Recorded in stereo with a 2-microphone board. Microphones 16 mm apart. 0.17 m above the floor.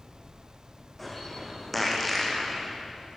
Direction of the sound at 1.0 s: 10° left (ahead or behind).